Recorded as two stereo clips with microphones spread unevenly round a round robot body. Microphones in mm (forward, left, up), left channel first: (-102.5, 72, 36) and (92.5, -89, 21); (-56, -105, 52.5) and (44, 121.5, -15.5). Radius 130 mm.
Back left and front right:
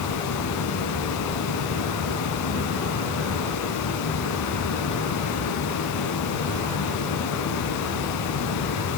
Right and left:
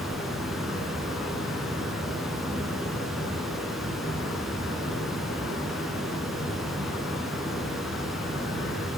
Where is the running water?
155° left, 0.9 m.